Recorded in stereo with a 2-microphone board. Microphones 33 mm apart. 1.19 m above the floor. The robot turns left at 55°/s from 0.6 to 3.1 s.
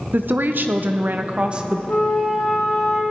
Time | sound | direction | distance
0.1 | a woman speaking | 90° right | 0.8 m
1.9 | a flute | 70° left | 3 m